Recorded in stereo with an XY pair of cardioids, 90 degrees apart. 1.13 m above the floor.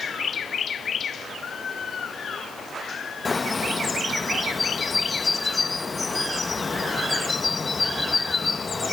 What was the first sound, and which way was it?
A bird, 25° left.